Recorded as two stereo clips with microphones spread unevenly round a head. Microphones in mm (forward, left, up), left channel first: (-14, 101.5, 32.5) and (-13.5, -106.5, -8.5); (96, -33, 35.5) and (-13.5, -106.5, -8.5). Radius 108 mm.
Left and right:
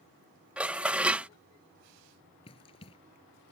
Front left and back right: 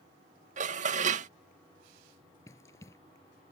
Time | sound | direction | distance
0.6 | dishes clattering | 175° left | ?
2.5 | running footsteps | 60° left | ?